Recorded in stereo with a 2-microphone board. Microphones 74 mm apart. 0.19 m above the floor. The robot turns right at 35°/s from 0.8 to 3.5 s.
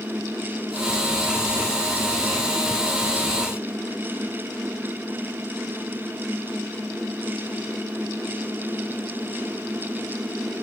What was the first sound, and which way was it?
Only background noise.